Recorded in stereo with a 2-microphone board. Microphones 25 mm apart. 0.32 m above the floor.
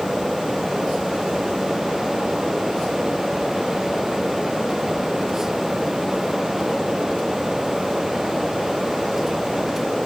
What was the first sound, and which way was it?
Only background noise.